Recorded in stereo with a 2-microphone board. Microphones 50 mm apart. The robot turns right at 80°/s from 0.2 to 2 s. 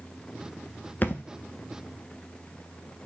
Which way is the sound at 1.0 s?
40° left (ahead or behind).